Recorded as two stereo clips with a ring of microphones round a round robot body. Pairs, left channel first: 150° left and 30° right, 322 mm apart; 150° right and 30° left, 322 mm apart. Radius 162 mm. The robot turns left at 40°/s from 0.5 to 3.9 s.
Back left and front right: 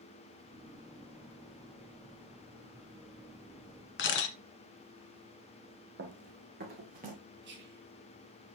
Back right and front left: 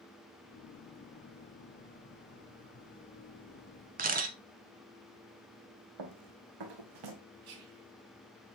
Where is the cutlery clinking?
I don't hear cutlery clinking.